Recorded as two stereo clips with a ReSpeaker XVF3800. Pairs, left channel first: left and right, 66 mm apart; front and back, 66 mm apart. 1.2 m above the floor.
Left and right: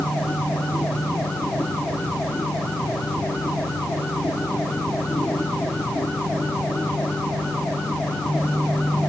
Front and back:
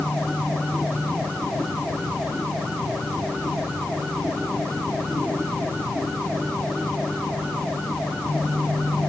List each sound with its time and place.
Only background noise.